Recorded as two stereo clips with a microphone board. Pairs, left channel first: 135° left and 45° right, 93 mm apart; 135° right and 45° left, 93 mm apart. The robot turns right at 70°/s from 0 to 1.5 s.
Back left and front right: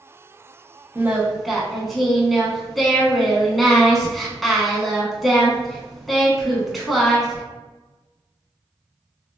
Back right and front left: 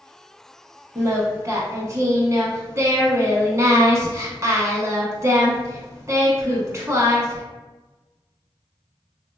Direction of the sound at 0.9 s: 5° left.